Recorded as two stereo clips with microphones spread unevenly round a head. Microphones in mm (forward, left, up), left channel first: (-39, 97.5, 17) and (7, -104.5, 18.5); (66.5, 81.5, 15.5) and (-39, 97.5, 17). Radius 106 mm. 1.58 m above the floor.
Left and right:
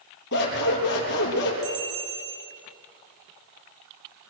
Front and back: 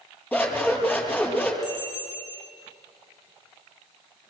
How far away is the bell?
About 5 m.